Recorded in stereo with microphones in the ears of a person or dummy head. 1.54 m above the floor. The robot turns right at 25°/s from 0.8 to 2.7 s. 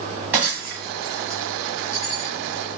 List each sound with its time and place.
0.3 s breaking glass: 10° right (ahead or behind), 1.5 m; by 2.3 s 25° left (ahead or behind), 1.5 m